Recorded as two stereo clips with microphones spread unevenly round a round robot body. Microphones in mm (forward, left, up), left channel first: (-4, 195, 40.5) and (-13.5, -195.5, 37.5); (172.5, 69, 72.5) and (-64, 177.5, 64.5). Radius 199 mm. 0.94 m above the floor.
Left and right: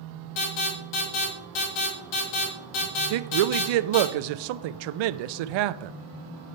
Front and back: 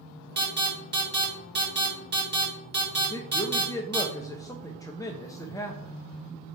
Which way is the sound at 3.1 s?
105° right.